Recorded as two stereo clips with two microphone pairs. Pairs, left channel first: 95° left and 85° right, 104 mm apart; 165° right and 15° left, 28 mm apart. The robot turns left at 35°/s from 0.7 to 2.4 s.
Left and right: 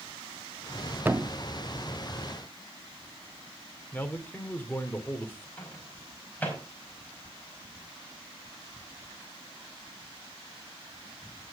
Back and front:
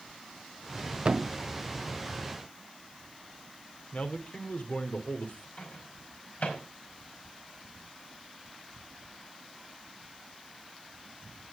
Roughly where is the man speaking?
Behind.